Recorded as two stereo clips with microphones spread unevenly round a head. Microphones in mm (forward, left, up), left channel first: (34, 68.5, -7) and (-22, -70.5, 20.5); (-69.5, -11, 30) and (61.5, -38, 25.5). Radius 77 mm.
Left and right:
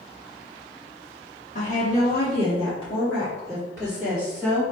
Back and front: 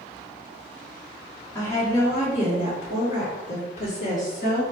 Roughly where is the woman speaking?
Left.